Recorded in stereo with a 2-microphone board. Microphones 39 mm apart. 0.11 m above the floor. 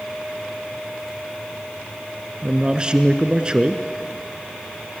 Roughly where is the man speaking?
Right.